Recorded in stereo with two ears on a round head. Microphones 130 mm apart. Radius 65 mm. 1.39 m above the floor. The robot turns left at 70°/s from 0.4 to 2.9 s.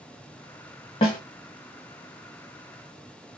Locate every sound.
1.0 s a snare drum: 40° left (ahead or behind), 1.5 m; by 1.2 s 35° left (ahead or behind), 1.5 m